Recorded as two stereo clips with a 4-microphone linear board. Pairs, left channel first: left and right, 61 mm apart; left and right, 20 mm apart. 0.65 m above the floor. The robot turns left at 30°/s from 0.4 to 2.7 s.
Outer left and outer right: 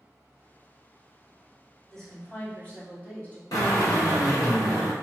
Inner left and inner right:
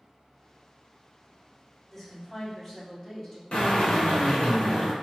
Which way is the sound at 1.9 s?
5° left (ahead or behind).